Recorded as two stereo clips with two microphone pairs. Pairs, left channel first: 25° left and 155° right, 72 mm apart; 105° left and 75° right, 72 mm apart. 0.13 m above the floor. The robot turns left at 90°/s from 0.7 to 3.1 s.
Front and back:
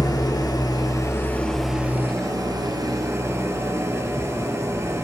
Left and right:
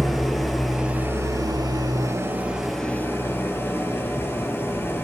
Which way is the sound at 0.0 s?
15° left.